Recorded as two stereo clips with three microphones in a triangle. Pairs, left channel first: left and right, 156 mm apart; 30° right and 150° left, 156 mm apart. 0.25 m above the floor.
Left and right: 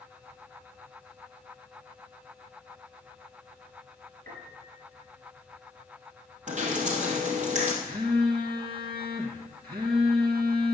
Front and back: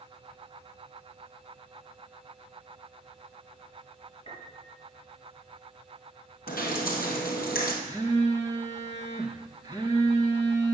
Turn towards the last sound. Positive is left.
turn(degrees=-75)